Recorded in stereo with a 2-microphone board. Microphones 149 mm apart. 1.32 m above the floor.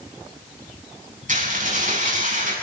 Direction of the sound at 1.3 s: 60° right (ahead or behind).